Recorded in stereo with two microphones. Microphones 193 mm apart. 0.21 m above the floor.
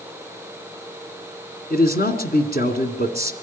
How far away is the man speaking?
About 2 m.